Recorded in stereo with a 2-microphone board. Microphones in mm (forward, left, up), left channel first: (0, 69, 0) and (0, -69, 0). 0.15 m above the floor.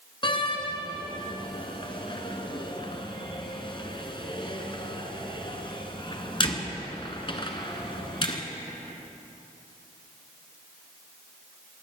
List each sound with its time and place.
0.2 s a door slam: 35° left (ahead or behind), 1.5 m